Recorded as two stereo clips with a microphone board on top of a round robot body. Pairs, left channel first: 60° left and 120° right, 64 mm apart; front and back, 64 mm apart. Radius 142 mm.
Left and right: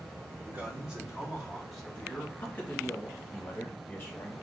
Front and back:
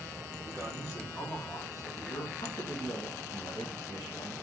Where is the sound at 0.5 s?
55° right, 3 m; by 2.3 s 10° right, 2.5 m.